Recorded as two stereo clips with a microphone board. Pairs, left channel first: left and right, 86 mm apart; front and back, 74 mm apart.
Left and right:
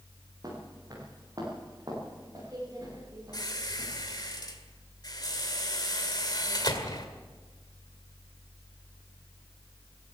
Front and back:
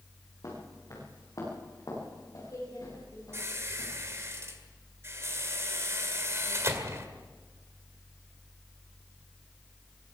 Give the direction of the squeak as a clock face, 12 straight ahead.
8 o'clock.